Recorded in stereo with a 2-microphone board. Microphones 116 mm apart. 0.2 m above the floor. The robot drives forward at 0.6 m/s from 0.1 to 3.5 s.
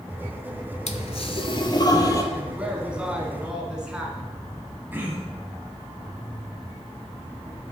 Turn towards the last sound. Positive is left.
turn(degrees=-15)  # may be behind; listen again after turning